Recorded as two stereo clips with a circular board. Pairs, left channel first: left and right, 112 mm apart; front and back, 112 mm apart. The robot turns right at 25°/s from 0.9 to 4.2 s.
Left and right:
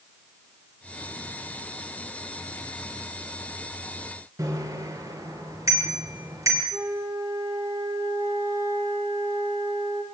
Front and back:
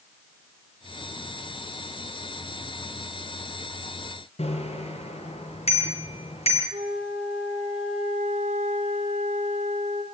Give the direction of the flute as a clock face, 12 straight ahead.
5 o'clock.